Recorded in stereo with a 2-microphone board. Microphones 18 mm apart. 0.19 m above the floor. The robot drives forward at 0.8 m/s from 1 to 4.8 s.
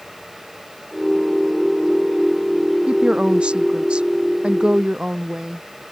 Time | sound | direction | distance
2.9 | a woman speaking | 80° right | ?